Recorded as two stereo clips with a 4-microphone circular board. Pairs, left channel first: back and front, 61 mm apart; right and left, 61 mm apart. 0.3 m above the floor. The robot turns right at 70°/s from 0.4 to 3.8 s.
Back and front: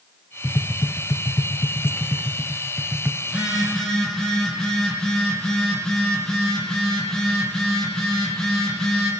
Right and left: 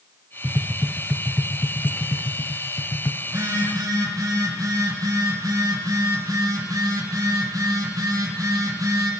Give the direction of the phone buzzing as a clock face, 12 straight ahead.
10 o'clock.